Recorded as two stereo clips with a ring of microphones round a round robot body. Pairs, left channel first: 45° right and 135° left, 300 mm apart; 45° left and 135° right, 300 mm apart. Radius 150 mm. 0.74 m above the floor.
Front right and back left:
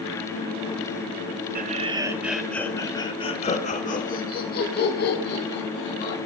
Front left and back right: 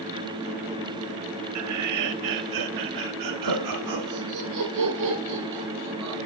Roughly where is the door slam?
No door slam in this recording.